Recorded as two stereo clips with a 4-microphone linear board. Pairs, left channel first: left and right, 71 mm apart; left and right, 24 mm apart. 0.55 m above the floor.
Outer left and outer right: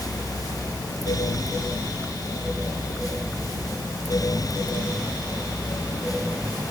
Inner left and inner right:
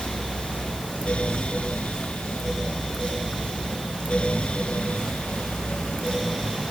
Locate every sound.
Only background noise.